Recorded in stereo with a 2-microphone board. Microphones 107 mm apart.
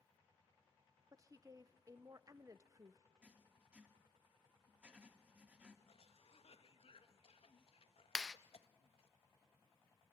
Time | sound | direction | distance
1.1 | a woman speaking | 35° right (ahead or behind) | 0.8 m
3.2 | writing | 10° right (ahead or behind) | 2 m
5.9 | a cough | 65° left (ahead or behind) | 1.3 m
8.2 | a clap | 5° left (ahead or behind) | 0.6 m